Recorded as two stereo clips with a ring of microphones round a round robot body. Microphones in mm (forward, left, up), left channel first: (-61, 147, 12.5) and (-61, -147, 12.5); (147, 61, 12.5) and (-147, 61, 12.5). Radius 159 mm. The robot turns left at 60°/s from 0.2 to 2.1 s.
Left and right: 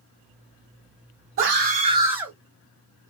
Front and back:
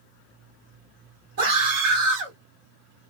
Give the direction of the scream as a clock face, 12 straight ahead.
4 o'clock.